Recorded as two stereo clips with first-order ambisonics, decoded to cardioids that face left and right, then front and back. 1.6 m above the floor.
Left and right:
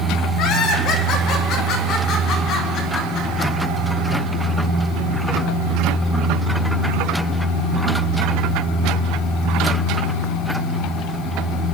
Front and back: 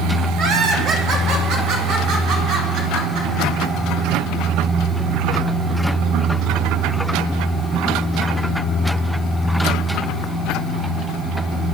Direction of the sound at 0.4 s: 135° left.